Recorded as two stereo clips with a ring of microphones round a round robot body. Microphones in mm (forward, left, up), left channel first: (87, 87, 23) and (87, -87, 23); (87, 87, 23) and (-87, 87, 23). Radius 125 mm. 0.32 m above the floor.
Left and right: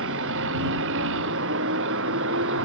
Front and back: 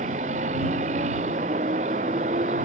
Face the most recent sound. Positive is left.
turn(degrees=-115)